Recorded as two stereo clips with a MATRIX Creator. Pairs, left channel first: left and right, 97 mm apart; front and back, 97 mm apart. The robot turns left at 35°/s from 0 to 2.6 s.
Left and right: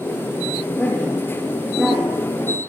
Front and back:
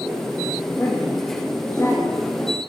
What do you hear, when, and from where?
0.8 s a woman speaking: 25° left, 0.8 m; by 2.2 s 25° right, 0.8 m